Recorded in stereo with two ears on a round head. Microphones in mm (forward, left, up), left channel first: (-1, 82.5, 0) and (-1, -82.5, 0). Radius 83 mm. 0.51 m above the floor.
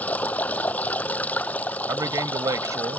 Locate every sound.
0.0 s running water: 10° left (ahead or behind)
1.9 s a man speaking: 20° right (ahead or behind)